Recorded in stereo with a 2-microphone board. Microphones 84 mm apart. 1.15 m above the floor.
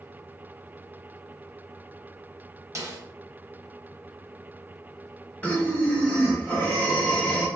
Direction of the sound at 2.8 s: 40° right (ahead or behind).